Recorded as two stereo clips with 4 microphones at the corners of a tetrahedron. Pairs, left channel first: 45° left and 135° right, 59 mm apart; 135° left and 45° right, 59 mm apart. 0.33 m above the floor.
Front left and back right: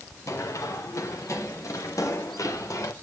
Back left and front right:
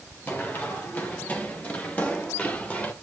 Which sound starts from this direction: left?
Running footsteps, at 0.3 s.